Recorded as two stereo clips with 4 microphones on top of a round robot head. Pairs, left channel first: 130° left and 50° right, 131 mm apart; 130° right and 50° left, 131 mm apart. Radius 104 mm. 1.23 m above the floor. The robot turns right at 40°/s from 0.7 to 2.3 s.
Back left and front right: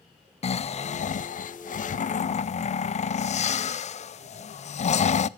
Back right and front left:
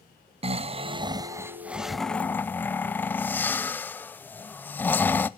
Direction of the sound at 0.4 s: 95° left.